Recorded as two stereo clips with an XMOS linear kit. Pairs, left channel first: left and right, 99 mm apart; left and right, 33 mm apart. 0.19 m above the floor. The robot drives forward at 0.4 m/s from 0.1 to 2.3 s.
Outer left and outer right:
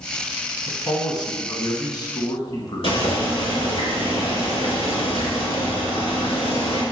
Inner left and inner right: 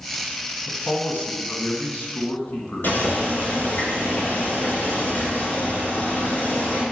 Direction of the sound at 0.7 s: 40° left (ahead or behind).